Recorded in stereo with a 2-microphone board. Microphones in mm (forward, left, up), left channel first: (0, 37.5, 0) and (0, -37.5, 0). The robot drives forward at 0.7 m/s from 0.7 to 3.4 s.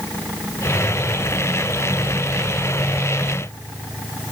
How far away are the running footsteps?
I don't hear running footsteps.